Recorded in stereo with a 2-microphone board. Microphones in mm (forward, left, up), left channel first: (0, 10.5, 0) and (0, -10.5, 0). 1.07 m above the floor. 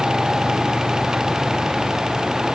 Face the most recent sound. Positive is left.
No sound to turn to.